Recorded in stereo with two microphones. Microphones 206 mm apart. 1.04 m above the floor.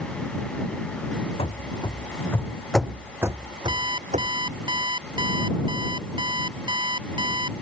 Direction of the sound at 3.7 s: 20° right (ahead or behind).